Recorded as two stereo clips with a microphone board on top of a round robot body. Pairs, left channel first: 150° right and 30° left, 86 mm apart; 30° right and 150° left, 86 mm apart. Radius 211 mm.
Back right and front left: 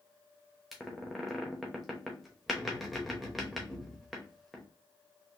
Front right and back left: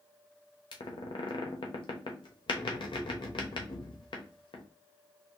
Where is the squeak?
60° right, 0.7 m.